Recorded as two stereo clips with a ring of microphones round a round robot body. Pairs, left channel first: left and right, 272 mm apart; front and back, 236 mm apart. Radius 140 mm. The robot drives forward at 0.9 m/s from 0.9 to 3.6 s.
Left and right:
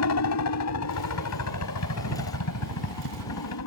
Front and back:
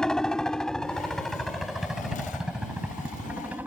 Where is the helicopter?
85° left; by 3.7 s 100° left.